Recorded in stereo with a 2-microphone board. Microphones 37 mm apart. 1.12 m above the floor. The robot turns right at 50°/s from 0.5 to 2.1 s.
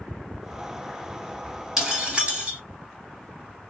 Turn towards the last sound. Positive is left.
turn(degrees=-30)  # may be behind; listen again after turning